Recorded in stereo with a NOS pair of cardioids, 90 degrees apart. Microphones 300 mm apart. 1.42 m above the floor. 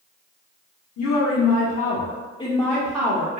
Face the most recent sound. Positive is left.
turn(degrees=-25)